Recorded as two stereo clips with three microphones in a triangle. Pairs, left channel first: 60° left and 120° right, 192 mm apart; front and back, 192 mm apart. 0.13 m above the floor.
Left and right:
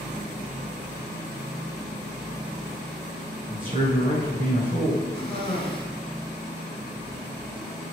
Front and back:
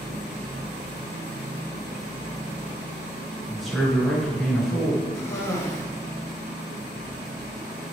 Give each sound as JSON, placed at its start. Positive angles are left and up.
{"t": 3.5, "sound": "a man speaking", "azimuth_deg": -85, "distance_m": 1.7}
{"t": 5.2, "sound": "a cough", "azimuth_deg": 55, "distance_m": 1.1}